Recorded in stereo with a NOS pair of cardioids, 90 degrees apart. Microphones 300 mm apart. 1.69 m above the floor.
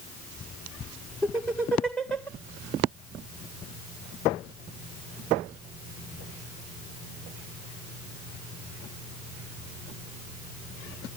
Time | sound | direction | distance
1.2 | laughter | 5° left | 1.6 m